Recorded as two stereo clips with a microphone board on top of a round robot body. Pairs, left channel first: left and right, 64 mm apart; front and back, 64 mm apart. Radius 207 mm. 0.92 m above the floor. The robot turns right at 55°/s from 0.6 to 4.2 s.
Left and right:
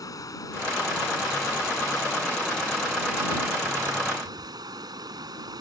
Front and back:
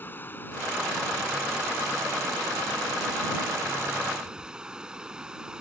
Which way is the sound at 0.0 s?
60° left.